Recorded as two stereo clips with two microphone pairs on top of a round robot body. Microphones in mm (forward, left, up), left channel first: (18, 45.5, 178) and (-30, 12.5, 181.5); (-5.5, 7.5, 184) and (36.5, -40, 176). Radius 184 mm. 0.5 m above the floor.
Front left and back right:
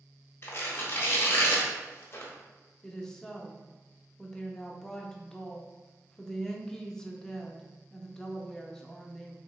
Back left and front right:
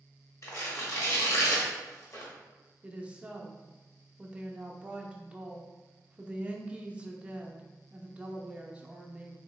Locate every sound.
0.4 s tearing paper: 85° left, 0.8 m
2.8 s a woman speaking: 25° right, 0.7 m